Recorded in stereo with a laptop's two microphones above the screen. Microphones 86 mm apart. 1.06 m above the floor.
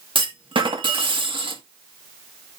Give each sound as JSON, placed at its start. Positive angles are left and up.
{"t": 0.1, "sound": "a clunk", "side_deg": -70, "distance_m": 1.6}